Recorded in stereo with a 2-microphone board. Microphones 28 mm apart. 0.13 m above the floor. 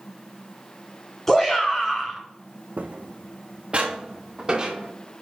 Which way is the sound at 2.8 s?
65° right (ahead or behind).